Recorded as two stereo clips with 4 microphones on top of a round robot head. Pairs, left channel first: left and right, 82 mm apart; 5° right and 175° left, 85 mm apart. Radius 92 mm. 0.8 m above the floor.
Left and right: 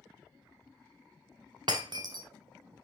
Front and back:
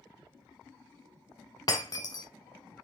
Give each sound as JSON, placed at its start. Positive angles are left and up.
{"t": 1.7, "sound": "breaking glass", "azimuth_deg": -55, "distance_m": 0.7}